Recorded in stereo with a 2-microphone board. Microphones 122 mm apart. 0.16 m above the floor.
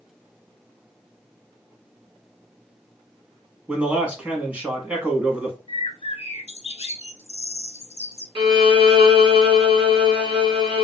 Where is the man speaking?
10° right (ahead or behind), 1.0 m.